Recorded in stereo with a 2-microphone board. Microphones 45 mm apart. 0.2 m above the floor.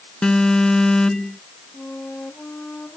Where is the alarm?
15° left (ahead or behind).